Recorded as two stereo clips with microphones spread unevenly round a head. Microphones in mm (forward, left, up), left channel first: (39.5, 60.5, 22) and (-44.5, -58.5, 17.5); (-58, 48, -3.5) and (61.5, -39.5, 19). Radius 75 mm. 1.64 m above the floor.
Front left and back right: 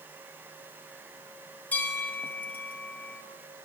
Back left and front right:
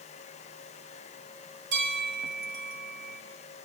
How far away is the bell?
About 6 m.